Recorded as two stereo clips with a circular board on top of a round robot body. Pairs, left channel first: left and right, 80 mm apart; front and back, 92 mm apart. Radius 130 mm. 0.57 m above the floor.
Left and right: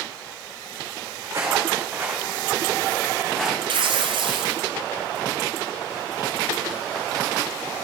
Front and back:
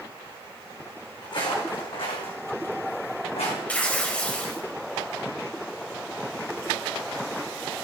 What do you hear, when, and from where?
1.2 s footsteps: 40° right, 3 m; by 3.6 s 10° left, 3 m
3.7 s tearing paper: 80° right, 0.7 m